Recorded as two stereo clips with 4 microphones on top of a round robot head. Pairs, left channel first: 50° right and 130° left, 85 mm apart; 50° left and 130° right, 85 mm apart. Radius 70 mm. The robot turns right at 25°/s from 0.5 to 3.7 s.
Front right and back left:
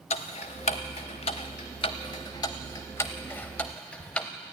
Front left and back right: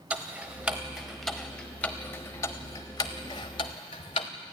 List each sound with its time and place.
0.1 s ticking: 55° right, 0.6 m; by 4.3 s 25° left, 0.6 m